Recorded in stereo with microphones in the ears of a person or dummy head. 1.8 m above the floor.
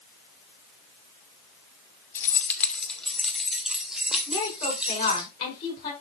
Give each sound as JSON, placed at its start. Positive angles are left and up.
{"t": 2.1, "sound": "keys jangling", "side_deg": 10, "distance_m": 1.5}
{"t": 4.3, "sound": "a woman speaking", "side_deg": 30, "distance_m": 5.5}